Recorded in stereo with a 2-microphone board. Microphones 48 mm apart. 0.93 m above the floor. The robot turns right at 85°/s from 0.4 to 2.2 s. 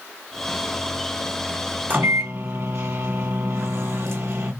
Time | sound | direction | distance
1.9 | a microwave | 40° right (ahead or behind) | 1.2 m